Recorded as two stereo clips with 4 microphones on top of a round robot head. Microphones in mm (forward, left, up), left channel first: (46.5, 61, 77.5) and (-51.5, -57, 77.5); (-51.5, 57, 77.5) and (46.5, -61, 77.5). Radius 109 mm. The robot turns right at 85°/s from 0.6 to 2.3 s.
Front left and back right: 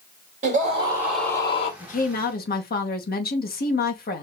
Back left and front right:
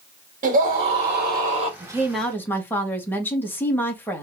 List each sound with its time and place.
0.4 s a scream: 90° right, 2.5 m; by 1.7 s 5° left, 2.5 m
1.8 s a woman speaking: 10° left, 2.0 m; by 4.2 s 55° left, 2.0 m